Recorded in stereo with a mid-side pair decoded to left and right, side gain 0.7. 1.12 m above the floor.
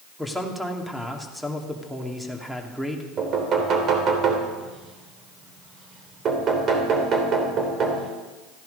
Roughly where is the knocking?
Ahead right.